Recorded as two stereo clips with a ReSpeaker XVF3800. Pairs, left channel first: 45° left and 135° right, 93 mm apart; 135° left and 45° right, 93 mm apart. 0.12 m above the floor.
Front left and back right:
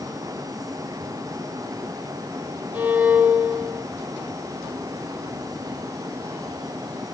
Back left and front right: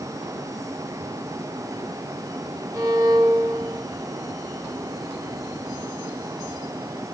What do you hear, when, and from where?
2.7 s a violin: 65° right, 1.9 m